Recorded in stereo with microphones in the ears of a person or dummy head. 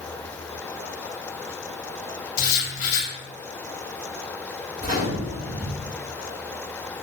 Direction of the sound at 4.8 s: 40° right (ahead or behind).